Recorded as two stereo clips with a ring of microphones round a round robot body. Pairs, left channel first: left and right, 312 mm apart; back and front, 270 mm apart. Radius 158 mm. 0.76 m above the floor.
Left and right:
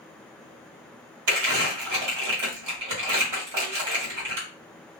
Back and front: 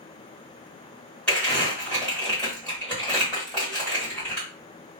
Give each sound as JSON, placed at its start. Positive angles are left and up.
{"t": 1.3, "sound": "crumpling", "azimuth_deg": -95, "distance_m": 1.6}